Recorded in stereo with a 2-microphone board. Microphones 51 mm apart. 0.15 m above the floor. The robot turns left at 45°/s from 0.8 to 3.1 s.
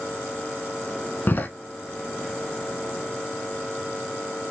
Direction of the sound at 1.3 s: 40° left (ahead or behind).